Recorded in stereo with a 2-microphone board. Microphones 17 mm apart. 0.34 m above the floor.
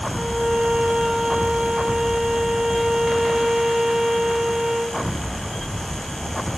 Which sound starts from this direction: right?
A violin, at 0.1 s.